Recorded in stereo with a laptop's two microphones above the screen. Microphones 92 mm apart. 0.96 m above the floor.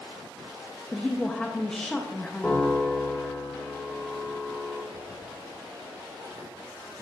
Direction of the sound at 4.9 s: 40° right (ahead or behind).